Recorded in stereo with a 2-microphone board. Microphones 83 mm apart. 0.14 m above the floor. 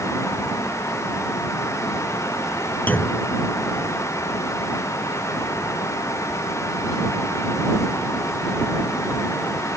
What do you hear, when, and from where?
2.9 s a clunk: 20° left (ahead or behind)